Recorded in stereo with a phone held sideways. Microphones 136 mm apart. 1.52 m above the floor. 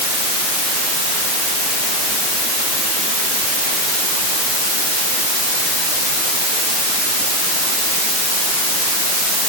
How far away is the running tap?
I don't hear a running tap.